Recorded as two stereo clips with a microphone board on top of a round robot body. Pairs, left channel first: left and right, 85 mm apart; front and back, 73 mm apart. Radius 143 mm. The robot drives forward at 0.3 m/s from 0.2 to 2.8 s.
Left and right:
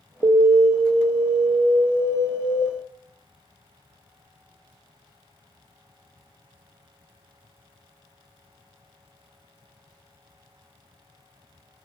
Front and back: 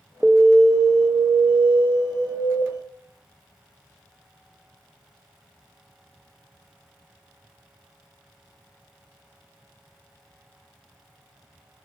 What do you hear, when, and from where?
0.2 s an alarm: 95° right, 0.5 m; by 2.6 s 150° right, 0.9 m